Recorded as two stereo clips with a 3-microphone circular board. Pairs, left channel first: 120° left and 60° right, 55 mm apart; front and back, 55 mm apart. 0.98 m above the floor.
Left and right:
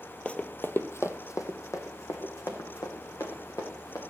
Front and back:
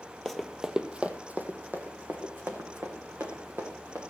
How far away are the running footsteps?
About 1.0 m.